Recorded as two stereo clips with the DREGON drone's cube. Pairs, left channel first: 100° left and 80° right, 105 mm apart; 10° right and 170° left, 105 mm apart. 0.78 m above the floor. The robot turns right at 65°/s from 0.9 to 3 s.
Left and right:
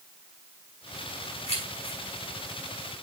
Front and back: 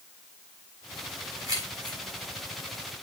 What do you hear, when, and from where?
1.5 s keys jangling: 110° left, 4 m; by 2.0 s 145° left, 4 m